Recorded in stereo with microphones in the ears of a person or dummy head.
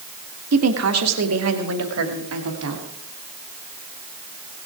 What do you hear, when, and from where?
0.5 s a woman speaking: 80° right, 1.4 m; by 2.8 s 85° right, 3 m